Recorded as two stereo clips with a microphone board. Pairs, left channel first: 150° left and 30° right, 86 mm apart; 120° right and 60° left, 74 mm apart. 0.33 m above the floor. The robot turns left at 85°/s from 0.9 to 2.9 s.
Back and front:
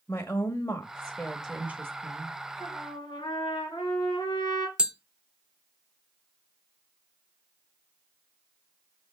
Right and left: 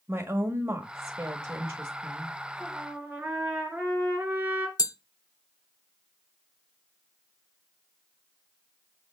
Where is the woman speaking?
95° left, 1.2 m; by 2.4 s 25° right, 1.2 m.